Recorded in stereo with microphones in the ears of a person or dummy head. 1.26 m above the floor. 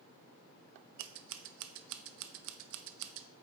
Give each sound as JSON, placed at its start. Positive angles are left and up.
{"t": 1.0, "sound": "scissors", "side_deg": -65, "distance_m": 0.6}